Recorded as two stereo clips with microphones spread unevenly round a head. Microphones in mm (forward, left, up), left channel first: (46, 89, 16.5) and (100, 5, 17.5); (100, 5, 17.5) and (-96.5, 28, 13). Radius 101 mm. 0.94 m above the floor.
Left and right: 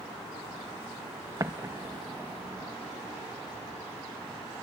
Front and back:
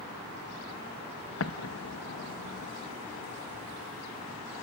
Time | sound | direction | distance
1.4 | an explosion | straight ahead | 0.9 m